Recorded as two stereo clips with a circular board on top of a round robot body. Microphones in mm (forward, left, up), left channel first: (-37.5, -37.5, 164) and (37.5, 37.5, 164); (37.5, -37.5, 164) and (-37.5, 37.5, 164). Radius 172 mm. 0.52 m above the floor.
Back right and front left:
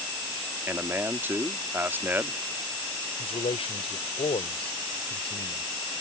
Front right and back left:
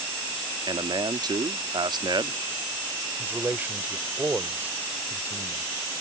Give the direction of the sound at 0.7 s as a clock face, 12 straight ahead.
8 o'clock.